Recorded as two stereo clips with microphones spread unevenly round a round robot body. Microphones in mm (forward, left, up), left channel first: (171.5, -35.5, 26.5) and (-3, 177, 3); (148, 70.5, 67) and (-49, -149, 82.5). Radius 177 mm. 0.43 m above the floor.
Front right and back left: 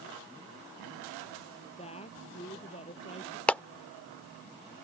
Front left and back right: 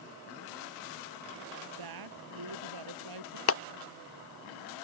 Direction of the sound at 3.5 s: 40° left.